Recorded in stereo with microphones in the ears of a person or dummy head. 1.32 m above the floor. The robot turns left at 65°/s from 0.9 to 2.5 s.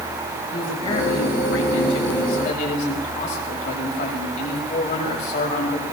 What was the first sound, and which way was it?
A man speaking, 155° left.